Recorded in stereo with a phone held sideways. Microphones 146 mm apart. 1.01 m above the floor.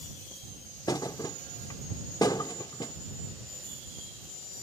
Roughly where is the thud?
Left.